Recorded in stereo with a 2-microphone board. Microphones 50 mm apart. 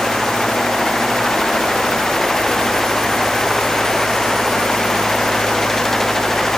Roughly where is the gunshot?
I don't hear a gunshot.